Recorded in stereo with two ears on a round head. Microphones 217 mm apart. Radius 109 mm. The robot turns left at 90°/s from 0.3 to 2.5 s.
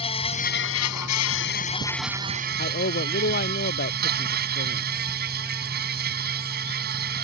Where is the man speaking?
40° left (ahead or behind).